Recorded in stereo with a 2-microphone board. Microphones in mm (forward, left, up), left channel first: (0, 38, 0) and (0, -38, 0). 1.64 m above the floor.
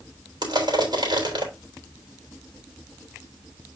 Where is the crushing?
75° right (ahead or behind), 3.5 m.